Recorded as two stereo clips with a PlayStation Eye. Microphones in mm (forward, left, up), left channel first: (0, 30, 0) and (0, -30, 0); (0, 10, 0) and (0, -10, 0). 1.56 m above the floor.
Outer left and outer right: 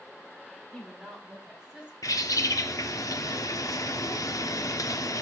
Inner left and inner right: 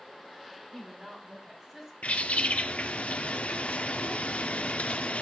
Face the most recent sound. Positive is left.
turn(degrees=75)  # may be behind; listen again after turning